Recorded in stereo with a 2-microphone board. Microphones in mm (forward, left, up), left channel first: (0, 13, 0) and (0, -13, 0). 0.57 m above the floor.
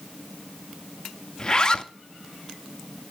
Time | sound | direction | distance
1.4 | a zipper | 30° left (ahead or behind) | 0.5 m